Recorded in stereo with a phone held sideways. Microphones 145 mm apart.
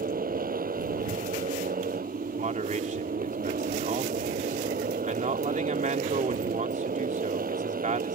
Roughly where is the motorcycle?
Right.